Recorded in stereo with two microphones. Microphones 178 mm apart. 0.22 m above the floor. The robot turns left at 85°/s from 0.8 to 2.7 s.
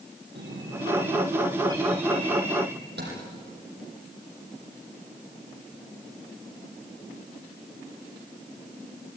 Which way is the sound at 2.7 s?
70° right (ahead or behind).